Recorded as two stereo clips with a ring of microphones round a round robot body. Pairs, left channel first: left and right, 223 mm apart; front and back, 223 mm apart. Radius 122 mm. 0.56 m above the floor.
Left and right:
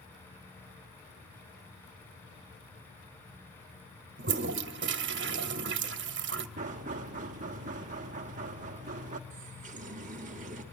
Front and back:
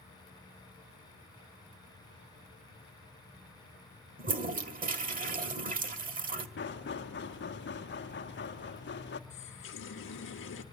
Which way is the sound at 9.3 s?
30° right.